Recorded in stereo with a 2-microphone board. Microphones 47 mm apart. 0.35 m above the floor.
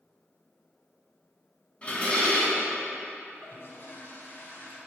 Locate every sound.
1.8 s dishes clattering: 25° left (ahead or behind), 1.7 m
3.3 s a toilet flushing: 55° left (ahead or behind), 1.7 m